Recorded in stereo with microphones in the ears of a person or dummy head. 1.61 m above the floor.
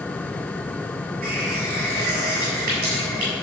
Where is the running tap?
55° right (ahead or behind), 7.5 m.